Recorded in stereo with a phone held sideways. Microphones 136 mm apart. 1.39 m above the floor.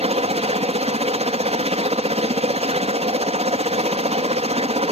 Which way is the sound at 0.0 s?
50° right (ahead or behind).